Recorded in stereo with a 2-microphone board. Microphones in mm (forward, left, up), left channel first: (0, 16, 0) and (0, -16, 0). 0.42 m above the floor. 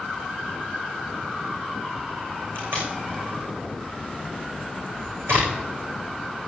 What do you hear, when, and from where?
2.5 s tape being pulled: 85° right, 6 m